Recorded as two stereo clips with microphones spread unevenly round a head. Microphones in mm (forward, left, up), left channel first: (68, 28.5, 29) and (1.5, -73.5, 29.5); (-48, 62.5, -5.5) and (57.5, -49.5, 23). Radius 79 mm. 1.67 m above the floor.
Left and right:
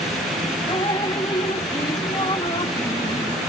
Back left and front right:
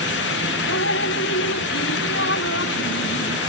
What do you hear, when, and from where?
0.7 s dripping: 125° left